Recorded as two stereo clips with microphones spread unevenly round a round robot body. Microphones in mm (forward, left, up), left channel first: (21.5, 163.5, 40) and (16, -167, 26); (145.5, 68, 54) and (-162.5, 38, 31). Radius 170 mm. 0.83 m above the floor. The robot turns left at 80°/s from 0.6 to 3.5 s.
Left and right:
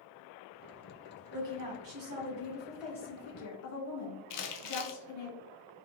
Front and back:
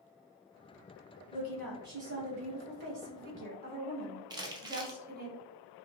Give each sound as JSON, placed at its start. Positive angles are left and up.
{"t": 1.3, "sound": "a woman speaking", "azimuth_deg": -55, "distance_m": 1.4}
{"t": 4.3, "sound": "crumpling", "azimuth_deg": 110, "distance_m": 0.6}